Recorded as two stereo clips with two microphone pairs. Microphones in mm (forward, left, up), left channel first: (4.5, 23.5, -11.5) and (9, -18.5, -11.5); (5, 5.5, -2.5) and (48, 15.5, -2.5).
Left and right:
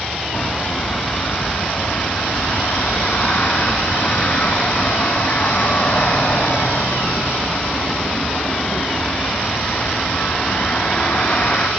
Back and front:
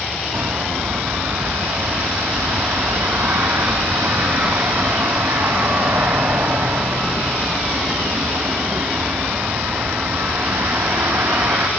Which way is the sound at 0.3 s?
40° left.